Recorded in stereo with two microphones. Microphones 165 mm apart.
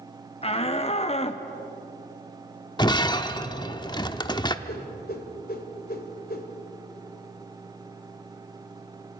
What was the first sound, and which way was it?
A shout, 35° left (ahead or behind).